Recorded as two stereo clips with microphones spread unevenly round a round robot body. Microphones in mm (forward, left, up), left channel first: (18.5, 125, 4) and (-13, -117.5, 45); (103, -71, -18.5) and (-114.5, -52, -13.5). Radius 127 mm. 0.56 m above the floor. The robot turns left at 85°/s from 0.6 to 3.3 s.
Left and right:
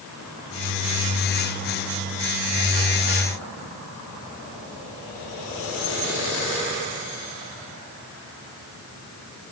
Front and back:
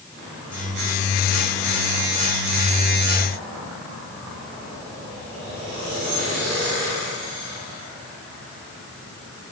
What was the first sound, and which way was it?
Only background noise.